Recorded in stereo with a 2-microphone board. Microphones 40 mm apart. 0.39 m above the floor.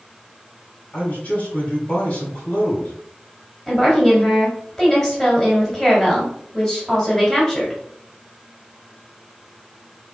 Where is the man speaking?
40° left (ahead or behind), 2.5 m.